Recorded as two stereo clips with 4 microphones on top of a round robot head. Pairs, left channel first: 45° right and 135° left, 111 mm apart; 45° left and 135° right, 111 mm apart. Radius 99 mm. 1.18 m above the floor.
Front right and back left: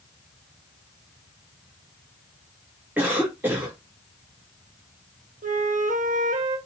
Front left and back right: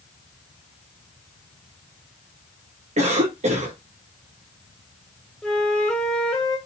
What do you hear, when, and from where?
3.0 s a cough: 150° right, 3 m
5.4 s a flute: 125° left, 2 m